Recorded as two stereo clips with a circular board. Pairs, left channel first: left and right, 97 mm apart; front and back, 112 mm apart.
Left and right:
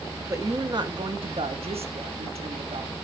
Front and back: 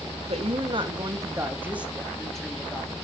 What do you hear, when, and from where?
0.3 s a woman speaking: 150° right, 1.3 m; by 2.9 s 75° right, 1.7 m